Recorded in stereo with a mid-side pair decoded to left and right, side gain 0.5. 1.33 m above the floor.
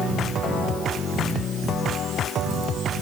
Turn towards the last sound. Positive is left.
No sound to turn to.